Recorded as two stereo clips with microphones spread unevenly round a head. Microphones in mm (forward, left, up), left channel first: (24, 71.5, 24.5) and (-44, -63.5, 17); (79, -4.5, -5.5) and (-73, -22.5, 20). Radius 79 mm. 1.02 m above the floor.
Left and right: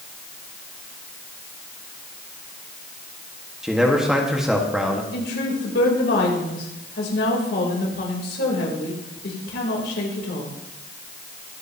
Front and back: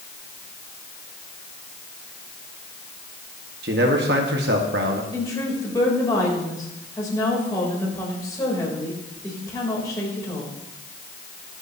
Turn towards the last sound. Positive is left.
turn(degrees=80)